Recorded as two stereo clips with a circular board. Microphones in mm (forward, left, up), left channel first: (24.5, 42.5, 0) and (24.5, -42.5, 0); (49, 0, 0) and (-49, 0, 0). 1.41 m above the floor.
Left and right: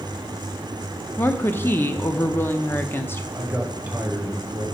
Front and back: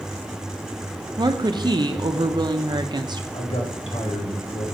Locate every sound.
1.2 s a woman speaking: 150° left, 0.5 m
3.3 s a man speaking: 20° right, 1.4 m